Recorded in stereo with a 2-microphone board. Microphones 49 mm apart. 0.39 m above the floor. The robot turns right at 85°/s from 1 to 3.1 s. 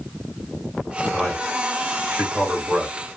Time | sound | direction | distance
1.1 | a man speaking | 5° left (ahead or behind) | 1.6 m